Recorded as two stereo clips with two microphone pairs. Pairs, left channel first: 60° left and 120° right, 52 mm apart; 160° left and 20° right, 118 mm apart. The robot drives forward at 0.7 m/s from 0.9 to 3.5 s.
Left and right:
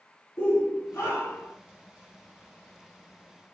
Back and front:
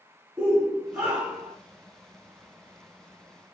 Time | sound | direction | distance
0.4 | a shout | 65° left | 3 m